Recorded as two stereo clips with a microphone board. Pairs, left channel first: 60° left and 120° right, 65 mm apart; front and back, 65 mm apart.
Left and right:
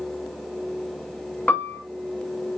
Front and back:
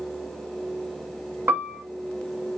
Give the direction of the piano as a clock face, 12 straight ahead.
8 o'clock.